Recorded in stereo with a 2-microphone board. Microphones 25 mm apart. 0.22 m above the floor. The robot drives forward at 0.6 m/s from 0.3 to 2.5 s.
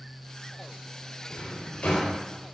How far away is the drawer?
About 3 m.